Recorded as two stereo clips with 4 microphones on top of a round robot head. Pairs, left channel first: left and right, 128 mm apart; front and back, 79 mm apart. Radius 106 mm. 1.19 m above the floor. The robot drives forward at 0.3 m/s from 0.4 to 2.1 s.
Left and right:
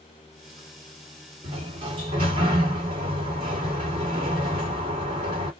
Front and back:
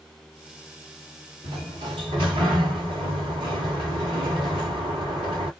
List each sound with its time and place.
1.4 s a sliding door: 150° right, 1.3 m; by 5.5 s 155° right, 1.5 m